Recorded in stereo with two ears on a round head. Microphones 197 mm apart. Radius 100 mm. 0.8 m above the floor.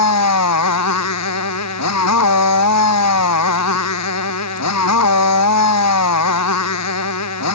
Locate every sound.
0.0 s a motorcycle: 80° left